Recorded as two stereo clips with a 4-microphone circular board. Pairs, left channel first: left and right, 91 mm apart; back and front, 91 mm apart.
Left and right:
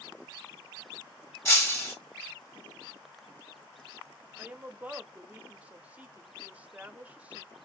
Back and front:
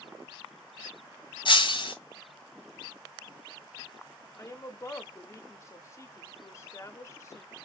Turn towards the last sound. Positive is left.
turn(degrees=-155)